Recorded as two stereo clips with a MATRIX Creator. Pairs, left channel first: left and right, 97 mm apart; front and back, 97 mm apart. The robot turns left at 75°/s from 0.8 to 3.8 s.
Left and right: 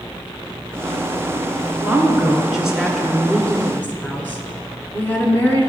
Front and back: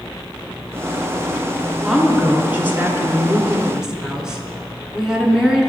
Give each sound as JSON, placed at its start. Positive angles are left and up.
{"t": 1.8, "sound": "a woman speaking", "azimuth_deg": -100, "distance_m": 1.1}